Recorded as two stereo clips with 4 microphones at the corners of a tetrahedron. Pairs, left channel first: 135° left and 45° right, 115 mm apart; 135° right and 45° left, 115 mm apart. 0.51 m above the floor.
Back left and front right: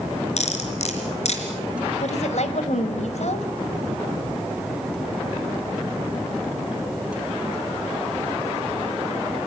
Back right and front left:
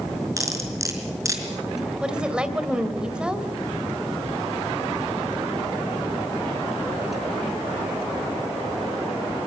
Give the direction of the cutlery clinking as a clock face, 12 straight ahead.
8 o'clock.